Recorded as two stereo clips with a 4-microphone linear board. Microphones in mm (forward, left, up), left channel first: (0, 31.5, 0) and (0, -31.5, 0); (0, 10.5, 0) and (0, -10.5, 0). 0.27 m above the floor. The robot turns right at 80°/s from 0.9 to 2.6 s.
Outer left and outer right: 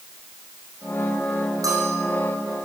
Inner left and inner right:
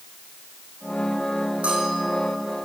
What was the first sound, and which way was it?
A bell, 105° right.